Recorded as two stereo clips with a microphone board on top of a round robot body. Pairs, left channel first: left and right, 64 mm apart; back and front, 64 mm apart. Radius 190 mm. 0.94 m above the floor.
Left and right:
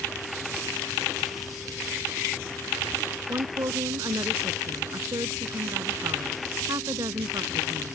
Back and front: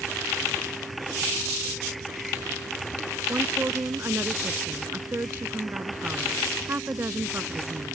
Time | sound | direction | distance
3.3 | a woman speaking | 55° right | ?